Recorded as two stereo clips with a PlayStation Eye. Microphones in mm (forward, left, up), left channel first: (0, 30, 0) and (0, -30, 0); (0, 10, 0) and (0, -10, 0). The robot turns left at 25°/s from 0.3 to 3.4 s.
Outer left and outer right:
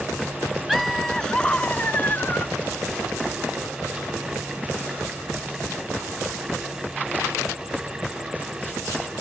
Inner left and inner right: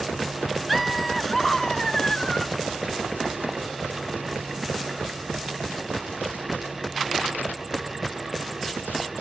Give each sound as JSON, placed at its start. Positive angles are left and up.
{"t": 0.7, "sound": "laughter", "azimuth_deg": 180}